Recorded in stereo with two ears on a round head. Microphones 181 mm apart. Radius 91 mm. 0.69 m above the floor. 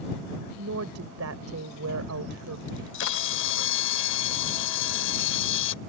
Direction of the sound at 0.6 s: 75° right (ahead or behind).